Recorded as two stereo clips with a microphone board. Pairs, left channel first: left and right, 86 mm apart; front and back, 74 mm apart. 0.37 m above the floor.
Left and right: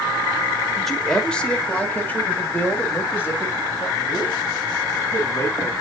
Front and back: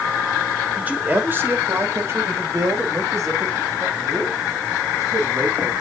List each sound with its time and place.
0.8 s a man speaking: 175° left, 1.2 m; by 5.7 s 145° left, 3.5 m